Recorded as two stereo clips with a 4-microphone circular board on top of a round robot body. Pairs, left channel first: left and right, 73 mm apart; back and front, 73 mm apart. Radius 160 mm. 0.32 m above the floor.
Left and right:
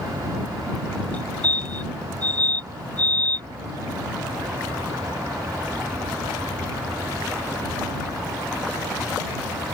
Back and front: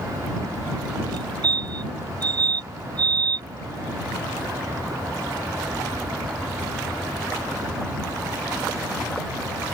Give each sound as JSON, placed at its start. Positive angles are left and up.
{"t": 1.1, "sound": "a fire alarm", "azimuth_deg": 20}